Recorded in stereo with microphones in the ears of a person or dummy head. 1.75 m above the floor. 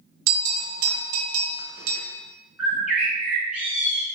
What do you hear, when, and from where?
0.3 s a bell: 85° right, 0.8 m
2.6 s a bird: centre (ahead or behind), 1.0 m